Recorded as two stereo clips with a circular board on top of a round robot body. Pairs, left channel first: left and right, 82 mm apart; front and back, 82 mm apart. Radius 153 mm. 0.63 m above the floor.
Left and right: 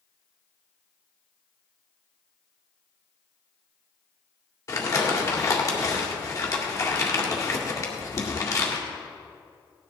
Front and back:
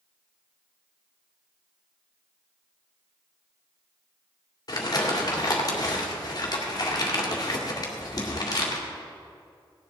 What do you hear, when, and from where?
4.7 s crumpling: 40° left, 2.0 m